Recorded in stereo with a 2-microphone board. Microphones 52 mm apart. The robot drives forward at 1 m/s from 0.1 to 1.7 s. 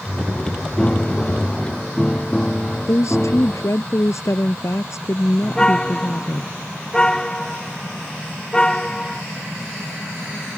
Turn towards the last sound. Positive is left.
turn(degrees=15)  # may be behind; listen again after turning